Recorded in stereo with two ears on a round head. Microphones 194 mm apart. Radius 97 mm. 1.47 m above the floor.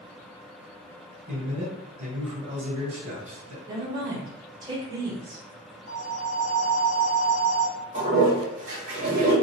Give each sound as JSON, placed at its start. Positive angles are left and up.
{"t": 1.3, "sound": "a man speaking", "side_deg": -35, "distance_m": 1.3}
{"t": 3.7, "sound": "a woman speaking", "side_deg": -20, "distance_m": 0.9}
{"t": 5.9, "sound": "a phone ringing", "side_deg": 30, "distance_m": 0.7}
{"t": 7.9, "sound": "a toilet flushing", "side_deg": -35, "distance_m": 1.4}